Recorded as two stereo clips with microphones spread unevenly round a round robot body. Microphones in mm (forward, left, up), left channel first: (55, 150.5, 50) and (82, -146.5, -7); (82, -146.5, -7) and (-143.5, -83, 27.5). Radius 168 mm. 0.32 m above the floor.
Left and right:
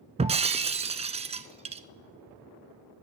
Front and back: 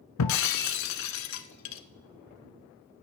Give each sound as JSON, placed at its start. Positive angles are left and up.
{"t": 0.2, "sound": "breaking glass", "azimuth_deg": -10, "distance_m": 0.6}